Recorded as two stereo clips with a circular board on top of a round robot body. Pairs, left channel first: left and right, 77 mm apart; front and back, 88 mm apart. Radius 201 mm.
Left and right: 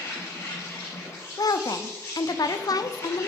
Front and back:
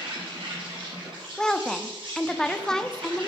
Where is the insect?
145° left, 6 m.